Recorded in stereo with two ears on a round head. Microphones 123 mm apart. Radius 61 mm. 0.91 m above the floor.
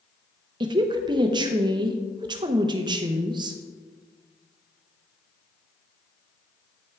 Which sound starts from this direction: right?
A woman speaking, at 0.6 s.